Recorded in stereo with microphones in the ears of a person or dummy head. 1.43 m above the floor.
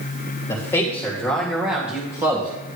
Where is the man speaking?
15° left (ahead or behind), 3 m; by 2.5 s 25° right (ahead or behind), 2.5 m.